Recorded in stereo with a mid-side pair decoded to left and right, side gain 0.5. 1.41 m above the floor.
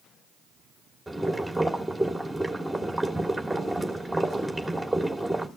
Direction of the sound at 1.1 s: 5° right.